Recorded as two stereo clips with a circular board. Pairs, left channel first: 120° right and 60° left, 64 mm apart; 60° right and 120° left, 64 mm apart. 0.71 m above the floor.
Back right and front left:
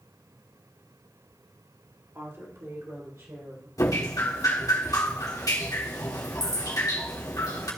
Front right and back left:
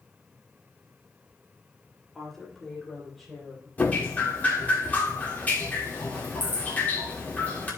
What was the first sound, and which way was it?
A woman speaking, 20° left.